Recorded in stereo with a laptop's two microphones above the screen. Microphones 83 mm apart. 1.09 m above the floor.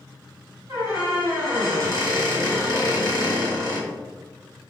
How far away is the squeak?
About 1.7 m.